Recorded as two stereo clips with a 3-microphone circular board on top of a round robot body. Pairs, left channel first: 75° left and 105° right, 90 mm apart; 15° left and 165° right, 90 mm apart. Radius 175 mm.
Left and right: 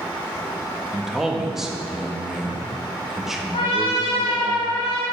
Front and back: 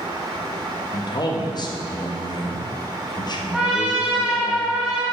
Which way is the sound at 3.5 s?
110° left.